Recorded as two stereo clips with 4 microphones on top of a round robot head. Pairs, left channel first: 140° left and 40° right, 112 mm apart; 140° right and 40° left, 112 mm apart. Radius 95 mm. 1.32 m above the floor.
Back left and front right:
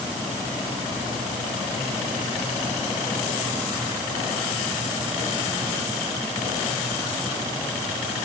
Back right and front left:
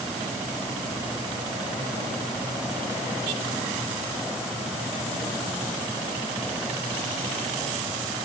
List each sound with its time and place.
Only background noise.